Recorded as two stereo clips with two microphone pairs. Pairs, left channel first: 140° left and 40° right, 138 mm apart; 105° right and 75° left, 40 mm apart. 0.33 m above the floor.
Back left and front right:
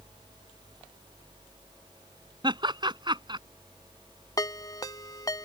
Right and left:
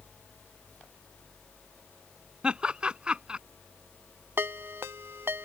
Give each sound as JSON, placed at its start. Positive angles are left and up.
{"t": 2.4, "sound": "laughter", "azimuth_deg": 15}
{"t": 4.4, "sound": "a ringtone", "azimuth_deg": 75}